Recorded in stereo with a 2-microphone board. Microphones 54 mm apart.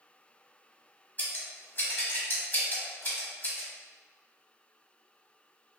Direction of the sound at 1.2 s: 35° left (ahead or behind).